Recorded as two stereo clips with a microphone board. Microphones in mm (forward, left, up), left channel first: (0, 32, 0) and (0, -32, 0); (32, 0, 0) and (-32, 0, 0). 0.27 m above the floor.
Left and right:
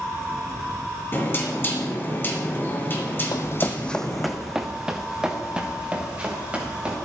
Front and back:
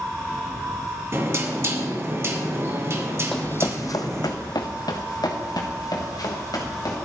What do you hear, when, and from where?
1.1 s knocking: 140° left, 2.5 m
3.3 s running footsteps: 80° left, 0.5 m; by 7.0 s 20° right, 4 m